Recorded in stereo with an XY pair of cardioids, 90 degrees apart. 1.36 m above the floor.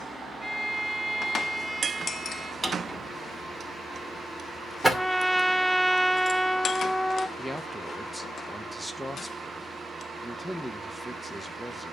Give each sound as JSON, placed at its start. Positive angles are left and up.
{"t": 0.4, "sound": "a violin", "azimuth_deg": -10, "distance_m": 1.6}
{"t": 2.6, "sound": "a drawer", "azimuth_deg": -10, "distance_m": 2.5}
{"t": 4.9, "sound": "a trumpet", "azimuth_deg": 5, "distance_m": 0.6}
{"t": 7.4, "sound": "a man speaking", "azimuth_deg": 0, "distance_m": 1.5}